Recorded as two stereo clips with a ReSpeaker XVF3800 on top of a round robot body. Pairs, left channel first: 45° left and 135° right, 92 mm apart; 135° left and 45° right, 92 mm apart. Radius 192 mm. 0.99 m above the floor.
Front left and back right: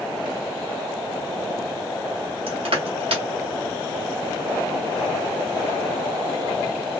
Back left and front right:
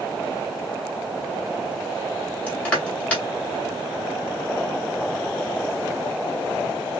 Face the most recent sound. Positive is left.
turn(degrees=-145)